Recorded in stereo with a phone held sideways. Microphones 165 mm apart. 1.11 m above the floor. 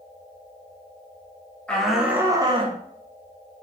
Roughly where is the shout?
Centre.